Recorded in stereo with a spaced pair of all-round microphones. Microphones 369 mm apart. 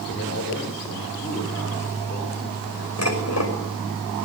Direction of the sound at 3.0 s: 45° left (ahead or behind).